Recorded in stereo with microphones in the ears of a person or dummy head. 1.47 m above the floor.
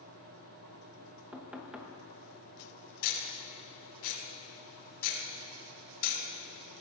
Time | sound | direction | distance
1.3 | knocking | 5° right (ahead or behind) | 1.1 m
3.0 | ticking | 75° left (ahead or behind) | 4.5 m